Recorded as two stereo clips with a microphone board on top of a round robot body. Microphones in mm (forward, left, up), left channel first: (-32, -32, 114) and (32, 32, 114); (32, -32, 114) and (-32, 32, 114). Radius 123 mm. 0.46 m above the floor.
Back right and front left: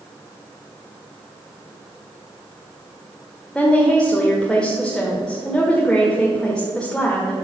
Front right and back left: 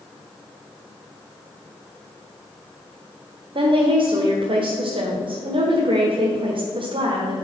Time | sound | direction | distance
3.5 | a woman speaking | 145° left | 1.6 m